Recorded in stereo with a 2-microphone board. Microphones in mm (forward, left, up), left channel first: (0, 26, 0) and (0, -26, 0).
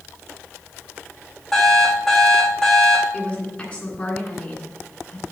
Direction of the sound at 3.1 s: 25° left (ahead or behind).